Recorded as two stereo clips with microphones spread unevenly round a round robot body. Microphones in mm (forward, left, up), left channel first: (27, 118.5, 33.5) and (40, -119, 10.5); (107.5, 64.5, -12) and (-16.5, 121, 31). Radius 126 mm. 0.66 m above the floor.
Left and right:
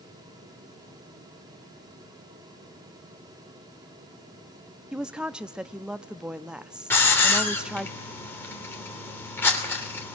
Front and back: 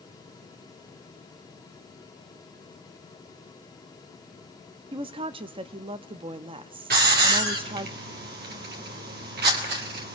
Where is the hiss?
175° left, 3 m.